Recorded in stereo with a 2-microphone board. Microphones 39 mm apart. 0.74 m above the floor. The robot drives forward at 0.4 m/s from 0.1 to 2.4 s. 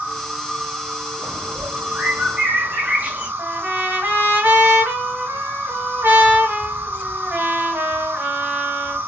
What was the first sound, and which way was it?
An insect, 35° right (ahead or behind).